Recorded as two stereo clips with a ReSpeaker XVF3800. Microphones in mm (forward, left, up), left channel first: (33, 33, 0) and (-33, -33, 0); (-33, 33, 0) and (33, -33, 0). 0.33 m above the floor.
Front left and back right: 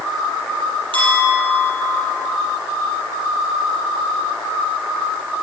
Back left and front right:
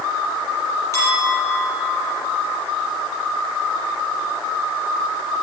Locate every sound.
0.9 s a clink: 165° right, 6 m